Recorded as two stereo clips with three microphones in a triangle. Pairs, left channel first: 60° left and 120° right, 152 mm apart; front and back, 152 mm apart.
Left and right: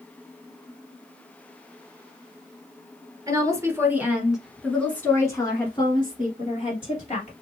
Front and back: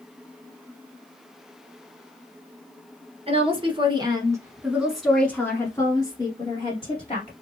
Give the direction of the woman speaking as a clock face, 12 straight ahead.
6 o'clock.